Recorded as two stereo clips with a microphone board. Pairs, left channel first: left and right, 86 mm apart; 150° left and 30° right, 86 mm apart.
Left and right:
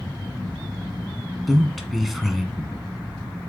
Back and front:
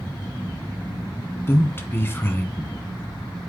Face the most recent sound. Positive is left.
turn(degrees=180)